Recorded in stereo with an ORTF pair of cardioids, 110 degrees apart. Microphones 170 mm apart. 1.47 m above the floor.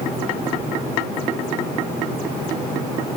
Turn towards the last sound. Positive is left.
No sound to turn to.